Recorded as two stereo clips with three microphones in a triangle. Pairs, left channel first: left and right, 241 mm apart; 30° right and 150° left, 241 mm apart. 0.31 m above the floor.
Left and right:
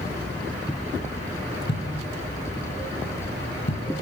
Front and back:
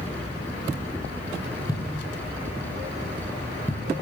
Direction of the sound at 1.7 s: 45° left.